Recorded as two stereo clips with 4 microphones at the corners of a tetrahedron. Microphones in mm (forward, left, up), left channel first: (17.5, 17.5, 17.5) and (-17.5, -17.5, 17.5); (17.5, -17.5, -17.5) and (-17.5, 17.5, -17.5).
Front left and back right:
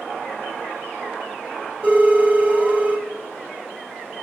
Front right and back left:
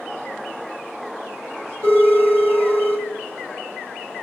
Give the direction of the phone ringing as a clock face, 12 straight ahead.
6 o'clock.